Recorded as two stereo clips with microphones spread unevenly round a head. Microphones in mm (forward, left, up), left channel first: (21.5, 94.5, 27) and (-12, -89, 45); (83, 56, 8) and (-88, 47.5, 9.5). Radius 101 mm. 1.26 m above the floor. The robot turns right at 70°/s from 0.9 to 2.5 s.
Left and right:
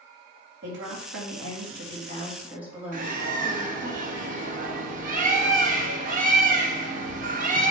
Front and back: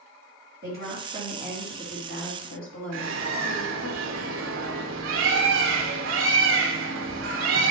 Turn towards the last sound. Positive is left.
turn(degrees=-150)